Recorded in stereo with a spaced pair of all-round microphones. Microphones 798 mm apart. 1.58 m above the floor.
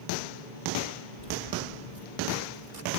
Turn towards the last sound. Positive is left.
turn(degrees=-60)  # may be behind; listen again after turning